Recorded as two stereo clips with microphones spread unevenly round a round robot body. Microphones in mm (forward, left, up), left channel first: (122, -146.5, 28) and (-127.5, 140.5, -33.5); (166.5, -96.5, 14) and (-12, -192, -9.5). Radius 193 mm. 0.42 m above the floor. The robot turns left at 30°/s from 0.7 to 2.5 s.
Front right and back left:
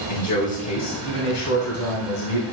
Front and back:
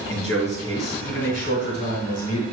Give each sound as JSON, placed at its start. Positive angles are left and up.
{"t": 0.1, "sound": "a man speaking", "azimuth_deg": 25, "distance_m": 3.0}